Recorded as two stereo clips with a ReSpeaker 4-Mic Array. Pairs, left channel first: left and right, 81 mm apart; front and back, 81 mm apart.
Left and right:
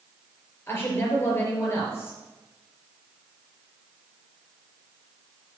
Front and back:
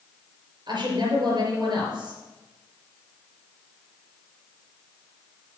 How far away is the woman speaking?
About 4 m.